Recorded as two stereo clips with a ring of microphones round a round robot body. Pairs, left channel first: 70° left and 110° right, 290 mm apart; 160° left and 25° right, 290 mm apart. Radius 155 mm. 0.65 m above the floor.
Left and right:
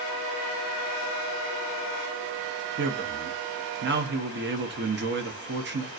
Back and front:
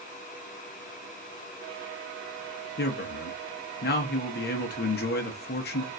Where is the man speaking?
155° right, 0.8 m.